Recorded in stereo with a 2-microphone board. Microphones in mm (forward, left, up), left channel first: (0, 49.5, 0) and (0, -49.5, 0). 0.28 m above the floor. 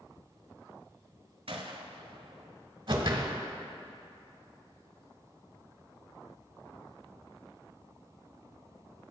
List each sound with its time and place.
1.5 s a gunshot: 80° right, 0.8 m
2.9 s a whoosh: 55° right (ahead or behind), 1.0 m